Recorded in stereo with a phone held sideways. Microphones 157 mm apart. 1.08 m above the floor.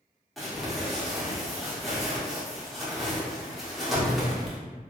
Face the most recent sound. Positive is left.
turn(degrees=0)  # may be behind; listen again after turning